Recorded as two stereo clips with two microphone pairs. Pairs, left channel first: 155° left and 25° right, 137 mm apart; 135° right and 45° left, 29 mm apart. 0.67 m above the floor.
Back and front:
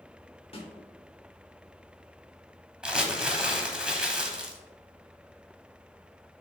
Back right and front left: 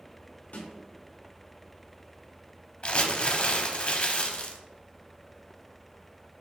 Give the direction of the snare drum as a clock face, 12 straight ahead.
5 o'clock.